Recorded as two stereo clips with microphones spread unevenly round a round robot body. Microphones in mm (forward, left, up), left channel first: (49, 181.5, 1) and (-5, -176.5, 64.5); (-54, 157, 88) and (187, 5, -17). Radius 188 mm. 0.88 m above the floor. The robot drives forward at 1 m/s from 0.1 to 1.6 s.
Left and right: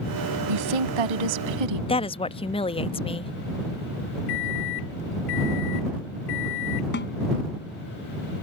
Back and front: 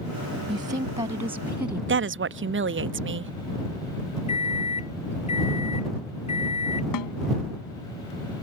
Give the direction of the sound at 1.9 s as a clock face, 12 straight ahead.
12 o'clock.